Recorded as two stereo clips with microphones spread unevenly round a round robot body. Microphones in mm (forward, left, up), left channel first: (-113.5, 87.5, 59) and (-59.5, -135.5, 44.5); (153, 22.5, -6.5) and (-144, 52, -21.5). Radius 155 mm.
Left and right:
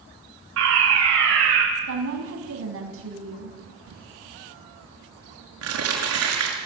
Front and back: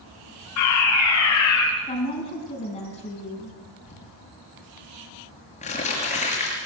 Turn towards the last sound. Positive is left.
turn(degrees=-75)